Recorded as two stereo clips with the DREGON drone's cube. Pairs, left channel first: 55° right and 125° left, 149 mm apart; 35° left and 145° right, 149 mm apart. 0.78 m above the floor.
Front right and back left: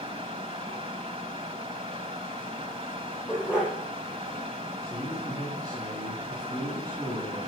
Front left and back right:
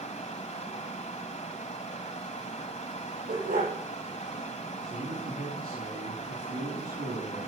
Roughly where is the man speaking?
Behind.